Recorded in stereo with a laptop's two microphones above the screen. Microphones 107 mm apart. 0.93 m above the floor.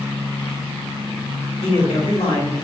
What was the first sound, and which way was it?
A man speaking, 75° left (ahead or behind).